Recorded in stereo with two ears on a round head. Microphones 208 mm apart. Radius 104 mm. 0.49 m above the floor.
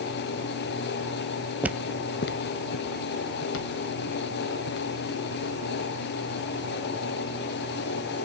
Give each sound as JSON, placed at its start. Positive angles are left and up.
{"t": 1.6, "sound": "footsteps", "side_deg": -5, "distance_m": 0.7}